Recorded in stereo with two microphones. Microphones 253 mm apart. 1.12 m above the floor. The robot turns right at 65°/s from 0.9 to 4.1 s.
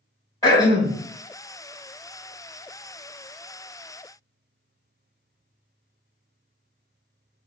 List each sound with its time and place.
0.4 s throat clearing: 15° left (ahead or behind), 1.0 m; by 1.0 s 10° left (ahead or behind), 1.0 m